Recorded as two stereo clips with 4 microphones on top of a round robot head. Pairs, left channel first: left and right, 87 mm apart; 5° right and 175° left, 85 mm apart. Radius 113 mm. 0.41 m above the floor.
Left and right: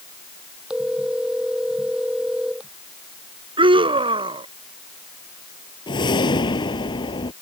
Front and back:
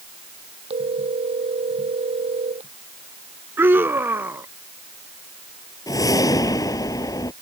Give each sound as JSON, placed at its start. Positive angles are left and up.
{"t": 0.7, "sound": "a phone ringing", "azimuth_deg": -170}
{"t": 3.6, "sound": "a scream", "azimuth_deg": -115}
{"t": 5.9, "sound": "a whoosh", "azimuth_deg": 50}